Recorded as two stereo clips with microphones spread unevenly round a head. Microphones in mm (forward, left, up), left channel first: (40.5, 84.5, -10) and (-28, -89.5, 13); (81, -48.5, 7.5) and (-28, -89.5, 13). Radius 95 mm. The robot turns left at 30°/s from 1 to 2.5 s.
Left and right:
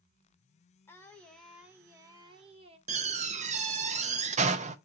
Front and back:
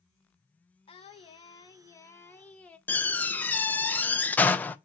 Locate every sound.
0.9 s singing: 15° right, 1.0 m; by 2.8 s 60° right, 1.0 m
2.9 s a door slam: 55° right, 0.7 m